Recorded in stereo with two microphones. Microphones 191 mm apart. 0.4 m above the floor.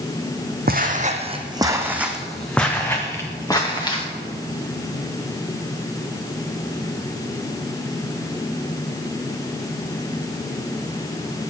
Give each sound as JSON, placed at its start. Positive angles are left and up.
{"t": 0.7, "sound": "footsteps", "side_deg": -50, "distance_m": 0.9}